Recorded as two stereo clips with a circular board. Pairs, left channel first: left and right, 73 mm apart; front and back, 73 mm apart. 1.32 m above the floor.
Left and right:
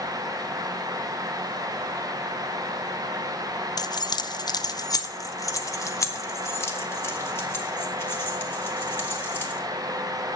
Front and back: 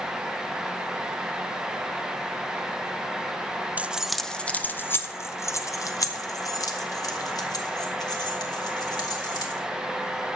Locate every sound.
3.8 s keys jangling: 110° left, 0.5 m; by 9.6 s 30° left, 3 m